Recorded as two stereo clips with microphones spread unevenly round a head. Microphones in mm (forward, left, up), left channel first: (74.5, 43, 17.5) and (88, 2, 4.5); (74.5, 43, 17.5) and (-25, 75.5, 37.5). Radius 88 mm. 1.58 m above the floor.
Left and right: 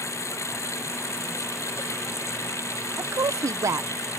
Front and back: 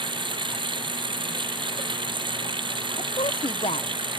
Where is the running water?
120° left.